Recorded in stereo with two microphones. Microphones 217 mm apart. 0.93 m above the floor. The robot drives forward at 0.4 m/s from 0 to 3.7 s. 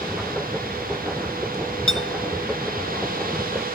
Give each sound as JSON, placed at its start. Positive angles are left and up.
{"t": 1.9, "sound": "a clink", "side_deg": 70}